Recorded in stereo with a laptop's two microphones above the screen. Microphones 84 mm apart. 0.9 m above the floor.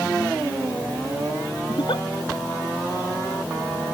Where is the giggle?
70° left (ahead or behind).